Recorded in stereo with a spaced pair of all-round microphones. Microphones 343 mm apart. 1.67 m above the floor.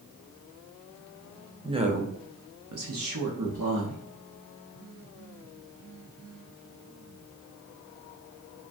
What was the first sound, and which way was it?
A woman speaking, 10° right (ahead or behind).